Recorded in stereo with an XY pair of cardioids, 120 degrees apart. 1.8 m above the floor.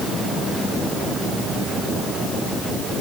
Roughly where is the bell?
No bell in this recording.